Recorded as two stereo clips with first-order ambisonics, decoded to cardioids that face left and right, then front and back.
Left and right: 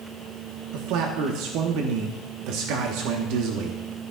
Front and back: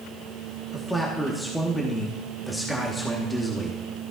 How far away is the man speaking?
About 1.2 m.